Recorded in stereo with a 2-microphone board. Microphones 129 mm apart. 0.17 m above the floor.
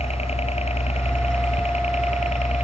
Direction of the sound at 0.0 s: 50° left (ahead or behind).